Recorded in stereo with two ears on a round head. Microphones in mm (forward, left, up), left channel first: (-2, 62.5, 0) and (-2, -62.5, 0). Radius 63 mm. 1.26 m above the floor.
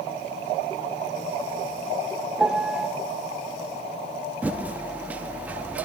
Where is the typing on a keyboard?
10° right (ahead or behind), 0.7 m.